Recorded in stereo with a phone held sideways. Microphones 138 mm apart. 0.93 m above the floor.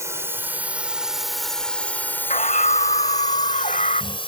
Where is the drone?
20° right (ahead or behind); by 4.3 s 40° left (ahead or behind).